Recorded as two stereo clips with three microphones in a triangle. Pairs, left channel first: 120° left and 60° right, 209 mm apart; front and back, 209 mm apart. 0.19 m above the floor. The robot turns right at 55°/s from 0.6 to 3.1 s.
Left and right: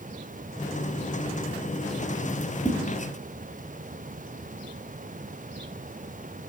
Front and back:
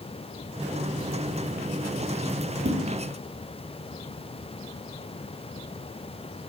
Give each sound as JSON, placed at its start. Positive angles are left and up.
{"t": 2.6, "sound": "a whoosh", "azimuth_deg": -160, "distance_m": 1.0}